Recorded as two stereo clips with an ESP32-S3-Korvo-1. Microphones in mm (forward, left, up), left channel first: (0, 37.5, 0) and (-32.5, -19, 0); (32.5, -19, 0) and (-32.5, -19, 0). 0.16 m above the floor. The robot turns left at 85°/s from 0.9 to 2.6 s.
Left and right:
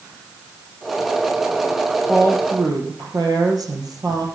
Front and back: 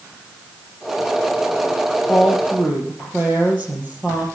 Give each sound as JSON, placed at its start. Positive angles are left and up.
{"t": 2.1, "sound": "a woman speaking", "azimuth_deg": -75, "distance_m": 3.5}